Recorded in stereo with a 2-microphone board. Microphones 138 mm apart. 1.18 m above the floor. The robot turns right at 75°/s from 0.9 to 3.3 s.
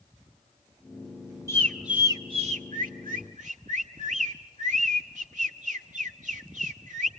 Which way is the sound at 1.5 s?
20° left (ahead or behind).